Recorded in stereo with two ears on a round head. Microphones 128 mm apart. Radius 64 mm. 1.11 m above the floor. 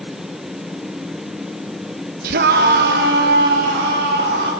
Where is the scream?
70° right (ahead or behind), 0.6 m; by 4.5 s 75° right (ahead or behind), 2.5 m.